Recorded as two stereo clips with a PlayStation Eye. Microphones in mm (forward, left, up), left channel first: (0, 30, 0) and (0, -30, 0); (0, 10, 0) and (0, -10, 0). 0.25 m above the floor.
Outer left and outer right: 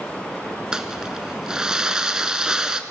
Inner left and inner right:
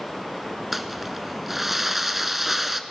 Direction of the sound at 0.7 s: 10° right (ahead or behind).